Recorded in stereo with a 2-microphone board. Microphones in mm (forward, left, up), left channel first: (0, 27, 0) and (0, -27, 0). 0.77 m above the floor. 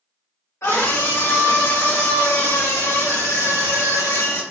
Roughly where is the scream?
Left.